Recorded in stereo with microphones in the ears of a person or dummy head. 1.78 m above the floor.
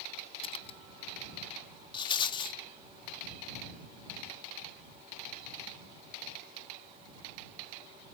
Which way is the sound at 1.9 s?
30° left (ahead or behind).